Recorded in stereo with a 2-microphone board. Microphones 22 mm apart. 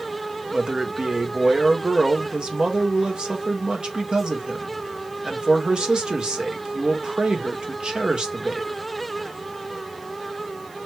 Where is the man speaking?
50° right (ahead or behind), 1.2 m.